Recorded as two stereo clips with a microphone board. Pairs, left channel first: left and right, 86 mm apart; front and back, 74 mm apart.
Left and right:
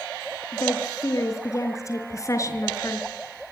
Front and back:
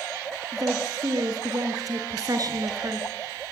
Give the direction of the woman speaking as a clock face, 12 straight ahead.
7 o'clock.